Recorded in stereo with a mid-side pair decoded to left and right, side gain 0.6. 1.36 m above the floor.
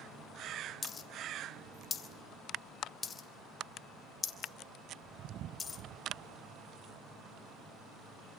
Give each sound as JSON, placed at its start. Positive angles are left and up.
{"t": 0.8, "sound": "a dropped coin", "azimuth_deg": 30, "distance_m": 2.5}